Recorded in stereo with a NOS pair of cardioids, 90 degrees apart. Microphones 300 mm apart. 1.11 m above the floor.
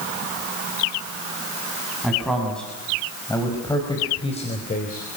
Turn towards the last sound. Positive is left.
turn(degrees=30)